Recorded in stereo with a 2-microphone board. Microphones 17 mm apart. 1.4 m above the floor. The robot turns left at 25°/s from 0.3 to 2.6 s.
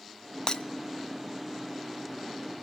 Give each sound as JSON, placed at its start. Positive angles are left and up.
{"t": 0.5, "sound": "breaking glass", "side_deg": 50, "distance_m": 0.8}